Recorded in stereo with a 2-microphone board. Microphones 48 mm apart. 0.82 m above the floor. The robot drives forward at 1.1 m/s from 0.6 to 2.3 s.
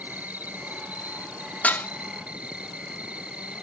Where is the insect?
35° right (ahead or behind); by 3.6 s 25° right (ahead or behind).